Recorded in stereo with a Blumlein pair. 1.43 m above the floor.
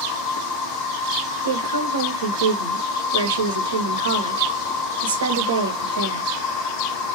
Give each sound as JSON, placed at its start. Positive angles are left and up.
{"t": 0.0, "sound": "an insect", "azimuth_deg": 35, "distance_m": 0.9}
{"t": 1.4, "sound": "a woman speaking", "azimuth_deg": -65, "distance_m": 1.1}